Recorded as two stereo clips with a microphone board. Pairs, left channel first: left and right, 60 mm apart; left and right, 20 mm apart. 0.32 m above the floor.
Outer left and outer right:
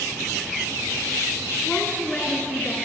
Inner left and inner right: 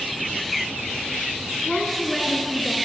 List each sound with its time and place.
1.6 s a woman speaking: 25° left (ahead or behind), 3.5 m; by 2.8 s 15° left (ahead or behind), 4.5 m